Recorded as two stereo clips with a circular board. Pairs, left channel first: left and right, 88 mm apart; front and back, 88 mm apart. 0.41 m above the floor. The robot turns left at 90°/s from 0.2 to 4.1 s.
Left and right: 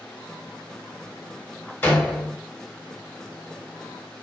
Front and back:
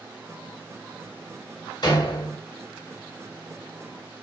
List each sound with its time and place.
1.8 s a door slam: 25° left, 1.1 m; by 2.4 s 25° right, 1.1 m